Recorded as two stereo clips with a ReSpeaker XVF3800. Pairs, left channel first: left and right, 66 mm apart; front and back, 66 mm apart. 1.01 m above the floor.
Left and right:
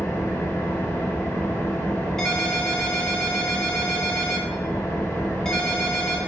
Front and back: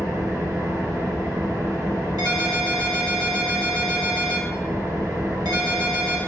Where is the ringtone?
175° left, 1.8 m.